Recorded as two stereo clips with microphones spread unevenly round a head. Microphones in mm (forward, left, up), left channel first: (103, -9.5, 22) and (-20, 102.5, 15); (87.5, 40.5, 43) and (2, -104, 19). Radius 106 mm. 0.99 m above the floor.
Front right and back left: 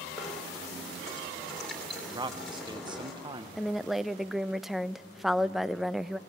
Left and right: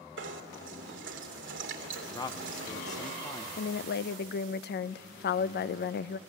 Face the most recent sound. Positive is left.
turn(degrees=50)